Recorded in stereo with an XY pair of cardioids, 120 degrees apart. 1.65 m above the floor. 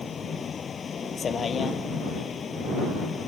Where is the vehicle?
35° left.